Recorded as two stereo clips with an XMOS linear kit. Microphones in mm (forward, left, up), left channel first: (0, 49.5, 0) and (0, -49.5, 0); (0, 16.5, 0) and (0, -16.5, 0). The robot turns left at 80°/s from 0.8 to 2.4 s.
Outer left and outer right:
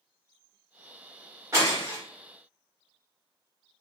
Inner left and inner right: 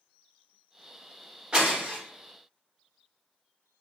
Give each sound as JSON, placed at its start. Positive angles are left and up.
{"t": 1.5, "sound": "breaking glass", "side_deg": -30, "distance_m": 1.3}